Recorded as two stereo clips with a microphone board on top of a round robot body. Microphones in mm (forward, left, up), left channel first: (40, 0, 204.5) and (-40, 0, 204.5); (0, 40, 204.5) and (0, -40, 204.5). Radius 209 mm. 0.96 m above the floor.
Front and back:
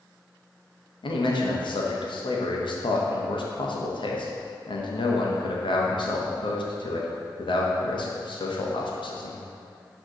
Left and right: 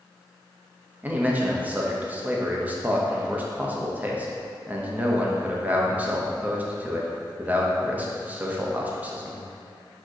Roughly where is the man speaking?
Ahead.